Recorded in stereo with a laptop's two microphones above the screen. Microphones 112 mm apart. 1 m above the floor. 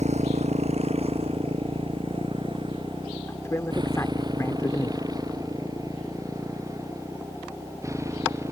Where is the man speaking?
25° left (ahead or behind).